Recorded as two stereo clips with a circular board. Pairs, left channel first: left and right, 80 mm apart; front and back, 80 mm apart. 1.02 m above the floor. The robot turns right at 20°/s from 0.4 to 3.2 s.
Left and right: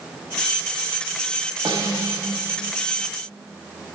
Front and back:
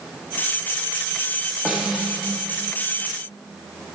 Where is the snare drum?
105° right, 1.7 m; by 2.3 s 90° right, 1.7 m.